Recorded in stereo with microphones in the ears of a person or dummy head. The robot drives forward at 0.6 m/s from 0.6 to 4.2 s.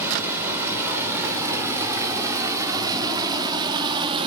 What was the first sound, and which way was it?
Running water, 10° right (ahead or behind).